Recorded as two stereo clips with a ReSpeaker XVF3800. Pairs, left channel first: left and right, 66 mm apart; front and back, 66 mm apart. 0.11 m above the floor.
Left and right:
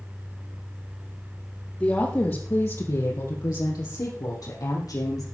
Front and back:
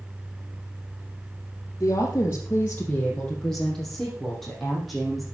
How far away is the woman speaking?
About 3 m.